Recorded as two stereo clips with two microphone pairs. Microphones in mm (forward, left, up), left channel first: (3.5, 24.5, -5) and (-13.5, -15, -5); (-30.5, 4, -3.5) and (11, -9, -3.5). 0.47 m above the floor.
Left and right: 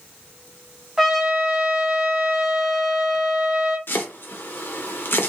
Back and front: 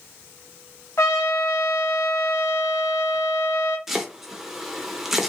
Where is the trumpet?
160° left, 0.9 m.